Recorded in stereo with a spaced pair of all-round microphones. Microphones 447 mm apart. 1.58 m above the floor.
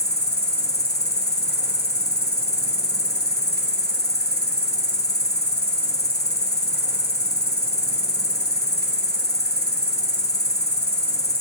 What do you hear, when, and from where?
0.0 s an insect: 20° left (ahead or behind), 0.8 m